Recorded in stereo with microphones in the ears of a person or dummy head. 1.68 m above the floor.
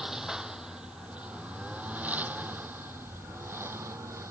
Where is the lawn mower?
5° right (ahead or behind); by 4.3 s 15° right (ahead or behind).